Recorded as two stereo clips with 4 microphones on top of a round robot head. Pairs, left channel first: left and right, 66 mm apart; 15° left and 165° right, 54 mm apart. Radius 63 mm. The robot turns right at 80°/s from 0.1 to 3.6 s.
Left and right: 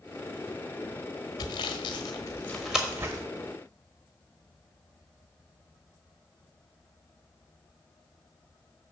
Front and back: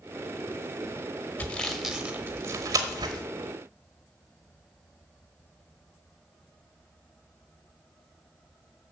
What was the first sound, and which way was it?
Sawing, 75° left.